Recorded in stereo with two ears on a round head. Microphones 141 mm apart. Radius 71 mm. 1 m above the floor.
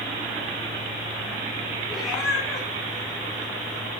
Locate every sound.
1.9 s a cat meowing: centre (ahead or behind), 5 m